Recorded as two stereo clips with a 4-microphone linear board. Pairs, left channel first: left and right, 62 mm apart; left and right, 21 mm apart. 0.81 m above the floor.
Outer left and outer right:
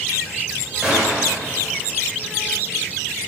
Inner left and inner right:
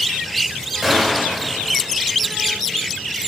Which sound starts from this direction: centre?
A gunshot, at 0.8 s.